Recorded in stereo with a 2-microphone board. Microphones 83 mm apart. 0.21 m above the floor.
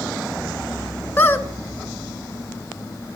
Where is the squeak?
30° left (ahead or behind), 0.5 m.